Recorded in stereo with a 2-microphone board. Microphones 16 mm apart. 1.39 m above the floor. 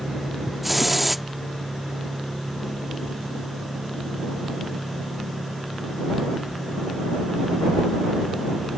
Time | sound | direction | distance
0.6 | a hiss | 10° right (ahead or behind) | ?